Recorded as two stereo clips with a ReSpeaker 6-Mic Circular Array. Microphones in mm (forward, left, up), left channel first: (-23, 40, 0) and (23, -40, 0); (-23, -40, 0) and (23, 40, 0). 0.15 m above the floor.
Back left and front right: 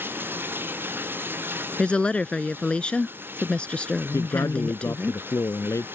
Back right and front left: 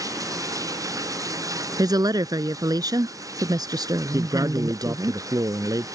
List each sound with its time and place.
0.0 s running water: 10° left
1.8 s a woman speaking: 45° left
4.1 s a man speaking: 85° left